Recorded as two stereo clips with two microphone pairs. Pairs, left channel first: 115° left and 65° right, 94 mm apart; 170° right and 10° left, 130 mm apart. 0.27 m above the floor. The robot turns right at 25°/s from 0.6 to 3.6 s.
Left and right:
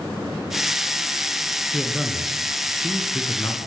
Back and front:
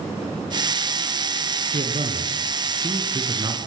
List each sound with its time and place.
1.7 s a man speaking: 20° left, 4 m; by 3.7 s 65° left, 4 m